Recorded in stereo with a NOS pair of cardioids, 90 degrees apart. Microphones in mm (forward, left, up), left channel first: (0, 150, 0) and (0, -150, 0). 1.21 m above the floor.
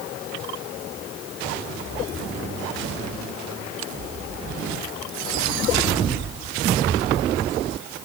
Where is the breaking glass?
I don't hear breaking glass.